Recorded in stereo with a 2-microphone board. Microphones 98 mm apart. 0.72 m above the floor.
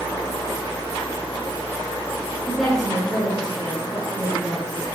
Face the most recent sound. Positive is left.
turn(degrees=0)  # may be behind; listen again after turning